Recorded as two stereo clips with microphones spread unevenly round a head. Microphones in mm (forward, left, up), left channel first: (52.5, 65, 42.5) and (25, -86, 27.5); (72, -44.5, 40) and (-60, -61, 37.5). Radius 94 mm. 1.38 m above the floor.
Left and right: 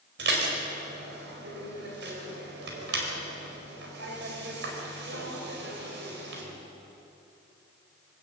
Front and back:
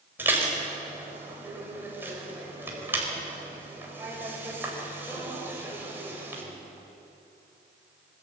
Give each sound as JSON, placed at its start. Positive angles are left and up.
{"t": 0.2, "sound": "dishes clattering", "azimuth_deg": -100, "distance_m": 4.5}